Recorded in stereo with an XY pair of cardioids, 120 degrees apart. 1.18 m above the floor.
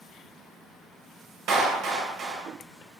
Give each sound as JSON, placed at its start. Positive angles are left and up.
{"t": 1.5, "sound": "a clap", "azimuth_deg": -60, "distance_m": 0.5}